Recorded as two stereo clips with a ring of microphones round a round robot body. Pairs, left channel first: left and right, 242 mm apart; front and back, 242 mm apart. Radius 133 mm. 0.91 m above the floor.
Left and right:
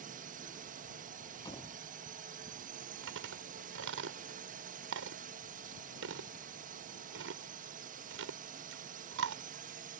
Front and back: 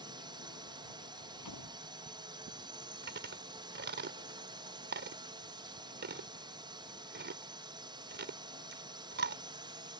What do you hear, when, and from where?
0.0 s a drone: 120° right
1.4 s a door slam: 15° left
3.0 s chewing: 135° right